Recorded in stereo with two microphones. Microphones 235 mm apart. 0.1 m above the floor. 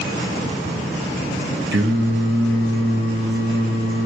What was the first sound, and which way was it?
Singing, 50° right (ahead or behind).